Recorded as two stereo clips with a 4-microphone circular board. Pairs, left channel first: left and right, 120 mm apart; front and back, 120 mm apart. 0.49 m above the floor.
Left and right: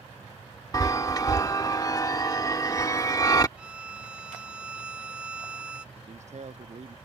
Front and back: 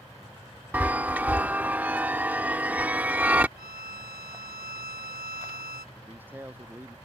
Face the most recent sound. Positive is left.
turn(degrees=-105)